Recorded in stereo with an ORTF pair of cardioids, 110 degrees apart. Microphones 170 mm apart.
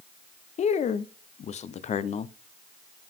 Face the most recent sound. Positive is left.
turn(degrees=40)